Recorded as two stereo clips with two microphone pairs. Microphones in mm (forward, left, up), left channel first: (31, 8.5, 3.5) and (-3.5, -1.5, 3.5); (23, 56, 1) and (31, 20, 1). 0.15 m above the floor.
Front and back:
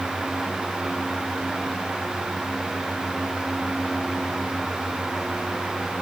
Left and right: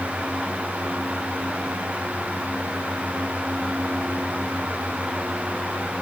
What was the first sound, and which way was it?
Only background noise.